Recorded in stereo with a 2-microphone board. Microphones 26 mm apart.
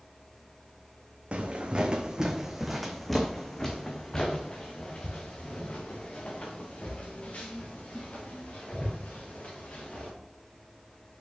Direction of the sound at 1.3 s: 45° right (ahead or behind).